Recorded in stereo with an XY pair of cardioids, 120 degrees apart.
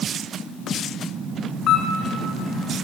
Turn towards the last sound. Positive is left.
turn(degrees=60)